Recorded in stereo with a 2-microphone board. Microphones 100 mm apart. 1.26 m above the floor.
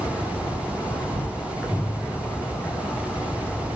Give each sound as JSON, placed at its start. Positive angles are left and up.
{"t": 0.0, "sound": "an insect", "side_deg": 20, "distance_m": 1.4}